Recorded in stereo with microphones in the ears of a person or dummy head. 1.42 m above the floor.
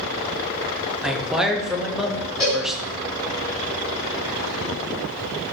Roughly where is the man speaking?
Centre.